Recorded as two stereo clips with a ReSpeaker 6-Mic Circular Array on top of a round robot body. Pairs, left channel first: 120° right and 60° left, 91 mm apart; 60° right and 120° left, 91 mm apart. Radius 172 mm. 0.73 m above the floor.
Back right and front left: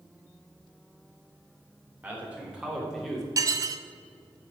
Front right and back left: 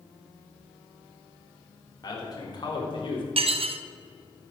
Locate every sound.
2.0 s a man speaking: 15° right, 4 m; by 3.3 s 30° right, 3.5 m
3.4 s dishes clattering: 115° left, 0.8 m